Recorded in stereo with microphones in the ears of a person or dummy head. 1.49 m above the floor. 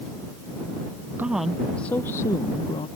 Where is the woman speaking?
15° right (ahead or behind); by 2.9 s 25° left (ahead or behind).